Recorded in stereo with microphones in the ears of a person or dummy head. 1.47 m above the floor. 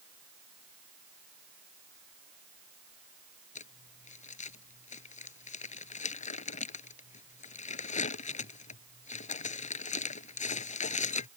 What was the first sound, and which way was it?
Crumpling, 45° left (ahead or behind).